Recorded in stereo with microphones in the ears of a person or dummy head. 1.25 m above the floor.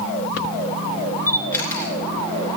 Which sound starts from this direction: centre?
A camera shutter, at 1.3 s.